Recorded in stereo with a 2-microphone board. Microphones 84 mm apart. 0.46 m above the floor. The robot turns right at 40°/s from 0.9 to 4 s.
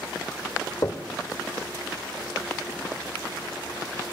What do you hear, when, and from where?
0.8 s knocking: 45° left (ahead or behind), 0.7 m